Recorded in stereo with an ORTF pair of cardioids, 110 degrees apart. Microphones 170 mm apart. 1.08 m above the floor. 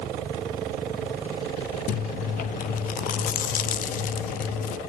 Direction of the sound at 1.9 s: 55° left.